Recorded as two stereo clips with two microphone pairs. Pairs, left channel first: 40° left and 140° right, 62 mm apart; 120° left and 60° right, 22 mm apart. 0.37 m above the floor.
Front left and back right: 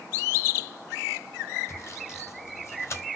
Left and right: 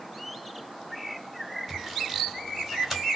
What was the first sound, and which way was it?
Sawing, 20° left.